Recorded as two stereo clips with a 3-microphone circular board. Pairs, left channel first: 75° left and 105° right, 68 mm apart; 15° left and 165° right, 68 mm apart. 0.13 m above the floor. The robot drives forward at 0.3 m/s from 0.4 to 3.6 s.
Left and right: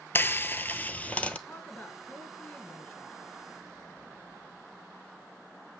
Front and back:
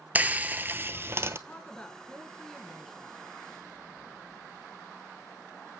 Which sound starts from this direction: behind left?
Frying, at 0.1 s.